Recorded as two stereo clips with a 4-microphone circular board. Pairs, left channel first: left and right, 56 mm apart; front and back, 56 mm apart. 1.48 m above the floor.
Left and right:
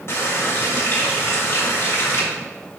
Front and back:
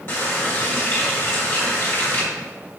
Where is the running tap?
45° left, 2.5 m.